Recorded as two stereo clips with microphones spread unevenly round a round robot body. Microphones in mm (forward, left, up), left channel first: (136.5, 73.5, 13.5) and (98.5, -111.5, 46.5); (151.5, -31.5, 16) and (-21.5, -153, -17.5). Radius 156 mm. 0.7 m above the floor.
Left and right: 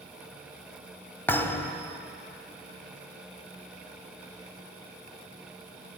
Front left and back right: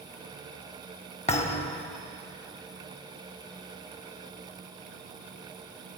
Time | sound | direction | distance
1.3 | a thud | 10° right | 0.7 m